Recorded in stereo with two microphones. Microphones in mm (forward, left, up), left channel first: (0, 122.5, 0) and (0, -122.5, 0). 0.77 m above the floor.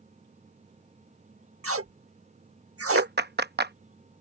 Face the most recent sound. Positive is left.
turn(degrees=-45)  # may be behind; listen again after turning